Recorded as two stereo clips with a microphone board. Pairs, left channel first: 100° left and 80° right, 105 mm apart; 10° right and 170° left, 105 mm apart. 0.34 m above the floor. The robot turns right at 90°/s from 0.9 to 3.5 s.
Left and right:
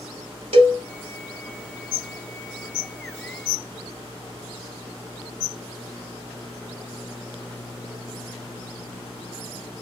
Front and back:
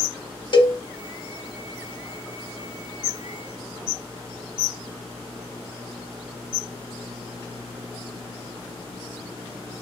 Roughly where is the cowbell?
Ahead right.